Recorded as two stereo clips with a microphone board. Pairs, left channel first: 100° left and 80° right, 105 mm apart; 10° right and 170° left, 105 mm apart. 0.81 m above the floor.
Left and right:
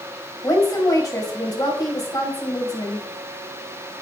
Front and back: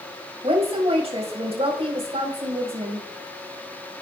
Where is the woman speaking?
155° left, 4.5 m.